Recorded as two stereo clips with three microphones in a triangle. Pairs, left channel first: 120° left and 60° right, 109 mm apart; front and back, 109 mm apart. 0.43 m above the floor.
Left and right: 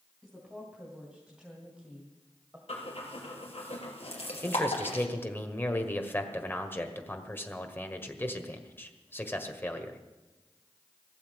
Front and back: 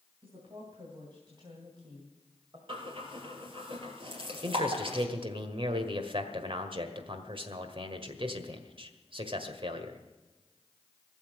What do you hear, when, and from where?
0.2 s a woman speaking: 145° right, 3 m; by 2.6 s 135° right, 2 m
2.7 s breathing: 145° left, 3 m
4.4 s a man speaking: 175° right, 1.6 m